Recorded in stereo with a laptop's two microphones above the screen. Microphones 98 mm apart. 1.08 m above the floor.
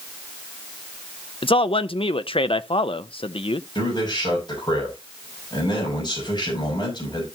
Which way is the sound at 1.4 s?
75° left (ahead or behind).